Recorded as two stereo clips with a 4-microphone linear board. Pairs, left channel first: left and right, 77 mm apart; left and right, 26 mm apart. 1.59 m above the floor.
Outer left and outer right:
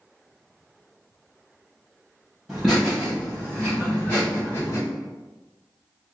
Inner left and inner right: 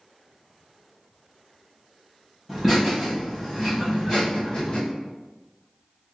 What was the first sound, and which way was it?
Laughter, centre (ahead or behind).